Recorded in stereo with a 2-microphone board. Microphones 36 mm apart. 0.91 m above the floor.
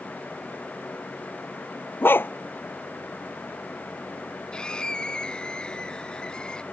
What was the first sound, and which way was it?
A dog barking, 70° left (ahead or behind).